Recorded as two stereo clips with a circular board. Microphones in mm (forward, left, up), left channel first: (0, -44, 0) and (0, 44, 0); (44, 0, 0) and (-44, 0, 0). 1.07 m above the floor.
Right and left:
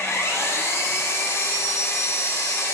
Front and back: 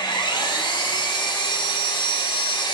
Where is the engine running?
30° right, 1.2 m.